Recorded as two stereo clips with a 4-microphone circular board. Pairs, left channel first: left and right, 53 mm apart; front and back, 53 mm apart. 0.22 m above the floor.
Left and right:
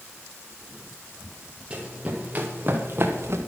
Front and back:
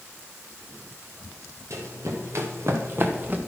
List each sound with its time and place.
1.7 s running footsteps: 160° right, 3.5 m; by 3.4 s 120° right, 2.0 m